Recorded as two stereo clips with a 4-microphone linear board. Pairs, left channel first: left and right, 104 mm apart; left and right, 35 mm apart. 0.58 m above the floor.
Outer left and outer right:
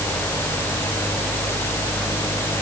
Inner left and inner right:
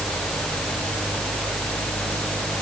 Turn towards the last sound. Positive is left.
No sound to turn to.